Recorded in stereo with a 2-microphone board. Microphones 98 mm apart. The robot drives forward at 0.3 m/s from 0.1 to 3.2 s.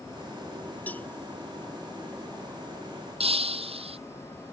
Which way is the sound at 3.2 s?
70° right (ahead or behind).